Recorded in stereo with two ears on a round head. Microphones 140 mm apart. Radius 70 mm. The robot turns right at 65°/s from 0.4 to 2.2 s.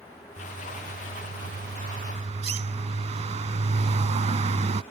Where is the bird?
160° right; by 4.8 s 45° right.